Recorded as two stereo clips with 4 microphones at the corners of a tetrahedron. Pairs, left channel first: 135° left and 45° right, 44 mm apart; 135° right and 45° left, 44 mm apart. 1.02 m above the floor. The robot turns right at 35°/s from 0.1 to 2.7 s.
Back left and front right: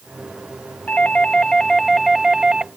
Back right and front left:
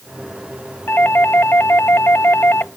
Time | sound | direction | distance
0.9 | a doorbell | 175° right | ?